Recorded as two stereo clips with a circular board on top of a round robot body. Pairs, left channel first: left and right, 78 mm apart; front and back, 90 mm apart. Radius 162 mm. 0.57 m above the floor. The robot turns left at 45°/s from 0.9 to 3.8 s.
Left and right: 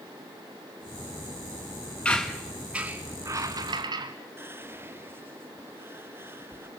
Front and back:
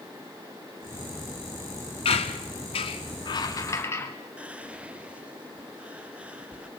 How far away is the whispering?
About 1.0 m.